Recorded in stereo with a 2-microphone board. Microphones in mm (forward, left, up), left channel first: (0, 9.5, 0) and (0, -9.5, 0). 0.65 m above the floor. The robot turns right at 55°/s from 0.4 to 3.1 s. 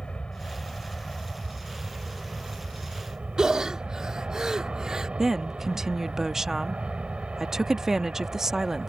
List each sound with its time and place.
0.0 s an aircraft: 120° left; by 8.9 s 90° right
3.4 s breathing: 35° right (ahead or behind)
5.2 s a woman speaking: 25° right (ahead or behind)